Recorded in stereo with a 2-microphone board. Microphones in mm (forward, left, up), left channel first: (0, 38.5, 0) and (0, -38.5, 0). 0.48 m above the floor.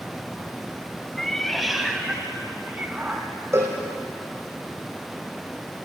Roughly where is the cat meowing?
Centre.